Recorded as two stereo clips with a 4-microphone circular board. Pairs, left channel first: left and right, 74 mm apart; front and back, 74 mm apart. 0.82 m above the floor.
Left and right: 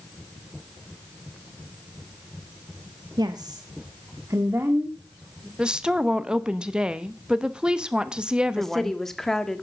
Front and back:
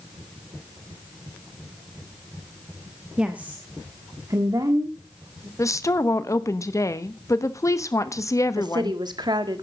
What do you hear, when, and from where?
3.2 s a woman speaking: 100° right, 1.0 m; by 5.5 s 155° right, 2.0 m
5.6 s a woman speaking: 20° right, 0.9 m
8.6 s a woman speaking: 175° left, 1.4 m